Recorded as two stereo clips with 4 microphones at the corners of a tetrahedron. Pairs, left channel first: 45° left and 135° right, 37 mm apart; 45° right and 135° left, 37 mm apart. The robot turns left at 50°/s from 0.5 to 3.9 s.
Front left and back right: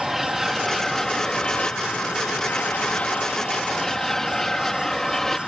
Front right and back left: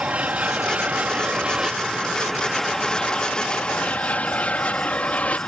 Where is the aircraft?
140° left; by 5.5 s 30° right.